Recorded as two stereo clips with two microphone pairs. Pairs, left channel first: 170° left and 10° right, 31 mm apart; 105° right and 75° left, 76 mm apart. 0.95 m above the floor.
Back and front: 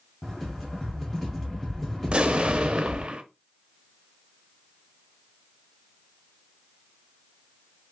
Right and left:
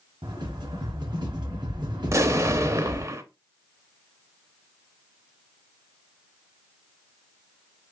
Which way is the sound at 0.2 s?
95° left.